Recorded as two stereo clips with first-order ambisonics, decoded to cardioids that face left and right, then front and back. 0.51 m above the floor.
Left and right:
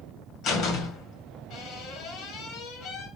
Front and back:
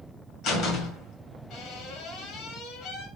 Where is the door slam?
45° left, 2 m.